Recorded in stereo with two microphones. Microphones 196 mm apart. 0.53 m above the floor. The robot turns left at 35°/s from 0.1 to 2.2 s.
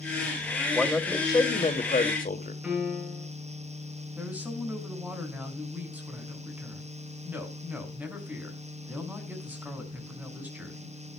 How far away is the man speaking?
About 2 m.